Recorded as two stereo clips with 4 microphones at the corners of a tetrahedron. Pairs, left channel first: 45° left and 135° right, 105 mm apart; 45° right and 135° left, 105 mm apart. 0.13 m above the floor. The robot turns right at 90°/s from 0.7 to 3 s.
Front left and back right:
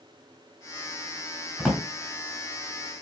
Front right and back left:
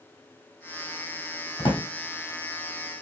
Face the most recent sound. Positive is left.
turn(degrees=65)